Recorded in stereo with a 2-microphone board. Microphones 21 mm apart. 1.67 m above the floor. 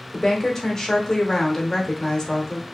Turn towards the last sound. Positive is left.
turn(degrees=15)  # may be behind; listen again after turning